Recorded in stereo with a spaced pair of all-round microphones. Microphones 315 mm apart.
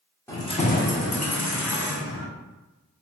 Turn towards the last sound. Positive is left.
turn(degrees=80)